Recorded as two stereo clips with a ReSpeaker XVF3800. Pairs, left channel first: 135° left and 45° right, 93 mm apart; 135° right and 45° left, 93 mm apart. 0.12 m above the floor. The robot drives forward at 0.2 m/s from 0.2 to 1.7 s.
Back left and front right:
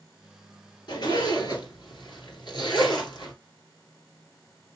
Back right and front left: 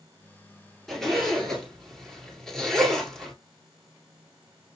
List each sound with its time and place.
0.9 s a zipper: 140° left, 1.8 m; by 3.3 s 145° left, 1.9 m